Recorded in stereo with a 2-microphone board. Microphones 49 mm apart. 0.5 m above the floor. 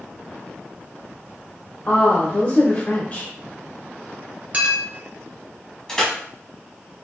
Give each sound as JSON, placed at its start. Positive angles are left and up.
{"t": 1.9, "sound": "a woman speaking", "side_deg": 40, "distance_m": 0.9}
{"t": 4.5, "sound": "a clink", "side_deg": -30, "distance_m": 1.0}
{"t": 5.9, "sound": "crushing", "side_deg": 10, "distance_m": 1.7}